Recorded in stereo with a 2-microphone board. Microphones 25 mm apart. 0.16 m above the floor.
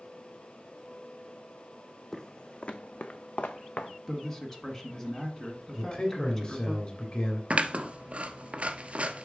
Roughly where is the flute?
I don't hear a flute.